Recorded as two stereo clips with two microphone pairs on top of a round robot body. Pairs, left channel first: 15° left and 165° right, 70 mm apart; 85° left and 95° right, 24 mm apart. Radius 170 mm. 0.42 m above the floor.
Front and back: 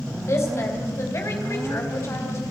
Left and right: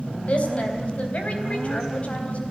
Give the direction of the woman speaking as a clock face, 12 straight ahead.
10 o'clock.